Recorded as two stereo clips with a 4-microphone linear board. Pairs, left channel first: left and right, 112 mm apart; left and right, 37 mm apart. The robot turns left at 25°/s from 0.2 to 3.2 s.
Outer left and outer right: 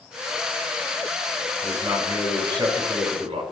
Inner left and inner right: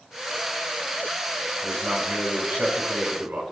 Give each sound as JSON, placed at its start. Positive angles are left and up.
{"t": 1.6, "sound": "a man speaking", "azimuth_deg": -20, "distance_m": 4.0}